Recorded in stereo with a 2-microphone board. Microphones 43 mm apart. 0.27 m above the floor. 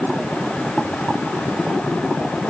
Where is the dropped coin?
I don't hear a dropped coin.